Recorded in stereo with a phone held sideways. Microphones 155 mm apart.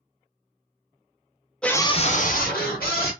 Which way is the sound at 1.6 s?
5° left (ahead or behind).